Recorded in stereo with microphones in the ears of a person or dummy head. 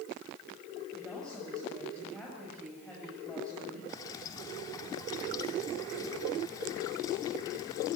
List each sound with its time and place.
0.9 s a woman speaking: 5° left (ahead or behind), 8 m
3.9 s dripping: 20° left (ahead or behind), 2.5 m